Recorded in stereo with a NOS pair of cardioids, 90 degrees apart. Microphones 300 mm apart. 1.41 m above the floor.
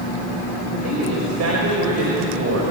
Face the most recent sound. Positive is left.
turn(degrees=-60)